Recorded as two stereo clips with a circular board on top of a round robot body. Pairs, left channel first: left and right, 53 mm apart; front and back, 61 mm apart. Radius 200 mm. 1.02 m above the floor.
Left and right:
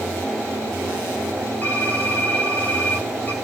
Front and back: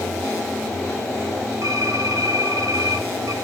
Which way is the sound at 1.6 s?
145° left.